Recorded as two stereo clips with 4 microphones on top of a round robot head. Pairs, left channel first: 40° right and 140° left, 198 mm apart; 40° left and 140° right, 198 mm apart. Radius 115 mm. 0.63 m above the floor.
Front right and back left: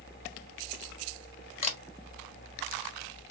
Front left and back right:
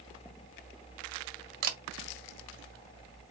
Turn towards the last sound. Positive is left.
turn(degrees=-100)